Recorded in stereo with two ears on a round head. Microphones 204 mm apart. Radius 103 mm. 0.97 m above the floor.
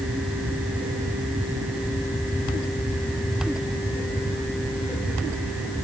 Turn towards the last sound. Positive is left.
No sound to turn to.